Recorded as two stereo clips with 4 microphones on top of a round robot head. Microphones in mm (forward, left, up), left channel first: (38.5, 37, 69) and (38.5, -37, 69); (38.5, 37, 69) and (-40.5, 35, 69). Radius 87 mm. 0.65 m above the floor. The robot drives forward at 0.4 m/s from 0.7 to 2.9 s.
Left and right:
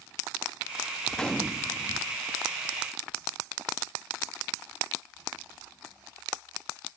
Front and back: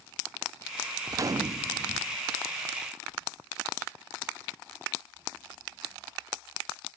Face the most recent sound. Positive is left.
turn(degrees=175)